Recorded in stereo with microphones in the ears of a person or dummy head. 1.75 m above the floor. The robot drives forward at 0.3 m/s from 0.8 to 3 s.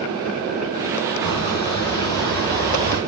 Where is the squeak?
15° left (ahead or behind), 3 m.